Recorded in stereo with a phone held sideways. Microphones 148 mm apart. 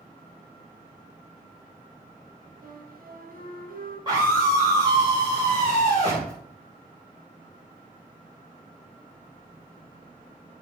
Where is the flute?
75° right (ahead or behind), 2.5 m.